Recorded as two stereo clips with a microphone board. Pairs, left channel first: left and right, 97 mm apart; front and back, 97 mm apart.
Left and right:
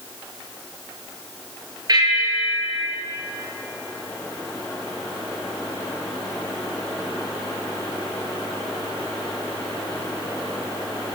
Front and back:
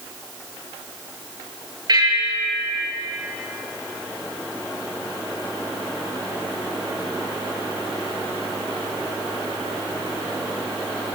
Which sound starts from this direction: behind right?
A bell, at 1.9 s.